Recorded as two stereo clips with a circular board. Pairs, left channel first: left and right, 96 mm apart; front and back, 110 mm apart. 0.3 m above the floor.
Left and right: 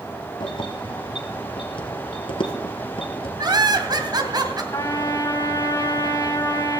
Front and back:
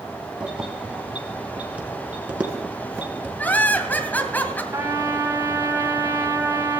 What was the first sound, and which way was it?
Keys jangling, 100° left.